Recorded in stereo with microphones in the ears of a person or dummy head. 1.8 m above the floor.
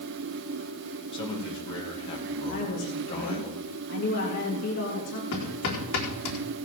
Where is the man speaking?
30° left (ahead or behind), 3 m.